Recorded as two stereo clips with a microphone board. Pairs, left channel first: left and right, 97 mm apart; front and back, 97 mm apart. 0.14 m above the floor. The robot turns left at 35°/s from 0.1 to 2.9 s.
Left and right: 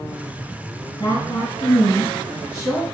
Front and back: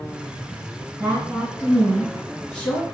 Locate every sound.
1.0 s a woman speaking: 115° left, 1.6 m; by 2.8 s 50° left, 1.6 m